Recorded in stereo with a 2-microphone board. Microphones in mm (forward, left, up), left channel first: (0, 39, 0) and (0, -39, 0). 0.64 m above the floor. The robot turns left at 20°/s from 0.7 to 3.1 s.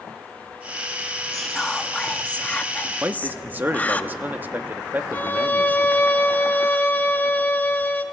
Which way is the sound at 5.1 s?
25° left (ahead or behind).